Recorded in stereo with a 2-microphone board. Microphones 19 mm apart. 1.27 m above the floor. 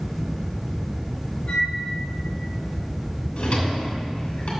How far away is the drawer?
About 2.5 m.